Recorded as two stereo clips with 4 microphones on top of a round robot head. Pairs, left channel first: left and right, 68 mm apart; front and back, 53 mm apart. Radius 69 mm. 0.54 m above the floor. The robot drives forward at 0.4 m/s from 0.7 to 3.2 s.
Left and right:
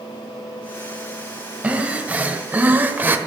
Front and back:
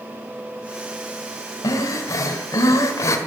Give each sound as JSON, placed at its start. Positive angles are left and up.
{"t": 1.6, "sound": "breathing", "azimuth_deg": -20, "distance_m": 1.8}